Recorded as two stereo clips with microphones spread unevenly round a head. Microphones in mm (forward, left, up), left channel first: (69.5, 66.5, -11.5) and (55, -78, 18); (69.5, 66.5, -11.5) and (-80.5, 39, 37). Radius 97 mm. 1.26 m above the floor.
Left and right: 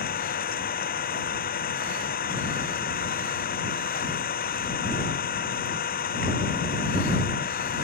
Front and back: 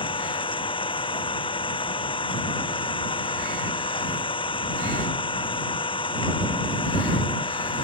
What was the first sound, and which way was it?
An engine running, 65° left.